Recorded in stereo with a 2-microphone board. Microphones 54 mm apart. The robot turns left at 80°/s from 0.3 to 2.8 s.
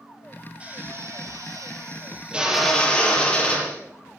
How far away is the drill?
About 5.5 m.